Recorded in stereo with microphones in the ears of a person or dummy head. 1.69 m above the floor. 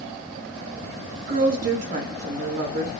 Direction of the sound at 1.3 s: 40° right (ahead or behind).